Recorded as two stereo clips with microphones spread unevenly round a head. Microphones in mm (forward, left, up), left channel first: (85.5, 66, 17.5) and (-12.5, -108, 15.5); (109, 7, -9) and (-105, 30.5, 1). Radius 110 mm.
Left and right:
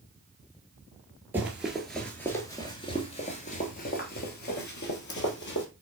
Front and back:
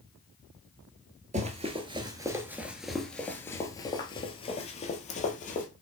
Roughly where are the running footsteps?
Behind.